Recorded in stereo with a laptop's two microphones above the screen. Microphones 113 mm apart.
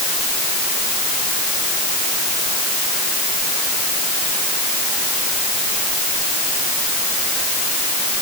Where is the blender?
No blender in this recording.